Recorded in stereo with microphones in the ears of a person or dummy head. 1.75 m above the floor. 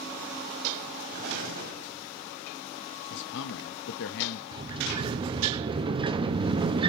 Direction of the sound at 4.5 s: 25° right (ahead or behind).